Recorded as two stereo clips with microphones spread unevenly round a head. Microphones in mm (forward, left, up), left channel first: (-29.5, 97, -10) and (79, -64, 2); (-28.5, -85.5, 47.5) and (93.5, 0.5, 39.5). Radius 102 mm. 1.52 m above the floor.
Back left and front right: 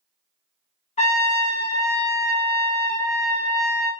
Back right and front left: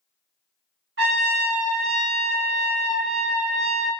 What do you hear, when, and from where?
1.0 s a trumpet: 65° left, 0.7 m